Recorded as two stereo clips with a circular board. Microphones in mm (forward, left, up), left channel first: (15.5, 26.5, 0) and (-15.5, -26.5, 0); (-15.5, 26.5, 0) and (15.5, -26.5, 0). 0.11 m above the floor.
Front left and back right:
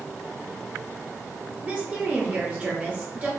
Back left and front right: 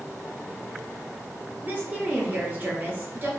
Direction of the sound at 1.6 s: 80° right.